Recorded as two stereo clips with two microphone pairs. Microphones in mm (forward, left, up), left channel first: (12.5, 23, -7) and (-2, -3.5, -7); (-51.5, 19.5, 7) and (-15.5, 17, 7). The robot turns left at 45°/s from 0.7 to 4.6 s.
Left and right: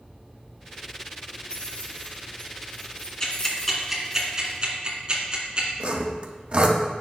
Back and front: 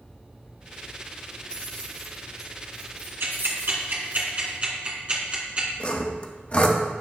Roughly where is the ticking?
Ahead.